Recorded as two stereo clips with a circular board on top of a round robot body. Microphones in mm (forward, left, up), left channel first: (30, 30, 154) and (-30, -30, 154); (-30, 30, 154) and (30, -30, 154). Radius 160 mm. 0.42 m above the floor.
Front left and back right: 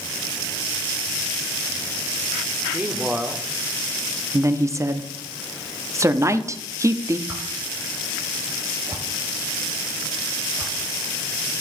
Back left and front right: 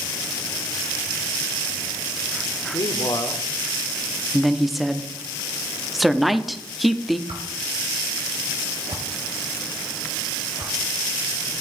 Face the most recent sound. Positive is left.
turn(degrees=-70)